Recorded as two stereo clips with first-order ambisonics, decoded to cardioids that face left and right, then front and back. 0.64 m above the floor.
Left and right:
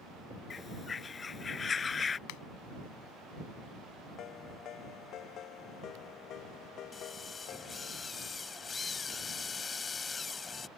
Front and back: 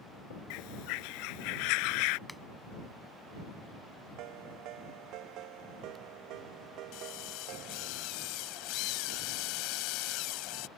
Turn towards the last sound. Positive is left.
turn(degrees=20)